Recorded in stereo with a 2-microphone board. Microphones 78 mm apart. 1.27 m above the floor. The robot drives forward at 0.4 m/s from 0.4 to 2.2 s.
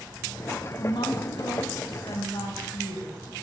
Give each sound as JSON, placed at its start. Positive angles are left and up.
{"t": 0.8, "sound": "a woman speaking", "side_deg": 70, "distance_m": 1.6}